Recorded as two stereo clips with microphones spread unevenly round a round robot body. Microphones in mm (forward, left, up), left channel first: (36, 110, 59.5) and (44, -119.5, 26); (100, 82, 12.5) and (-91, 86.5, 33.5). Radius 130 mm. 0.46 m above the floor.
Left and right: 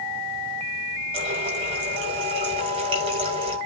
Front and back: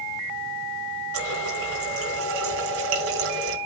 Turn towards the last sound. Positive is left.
turn(degrees=-155)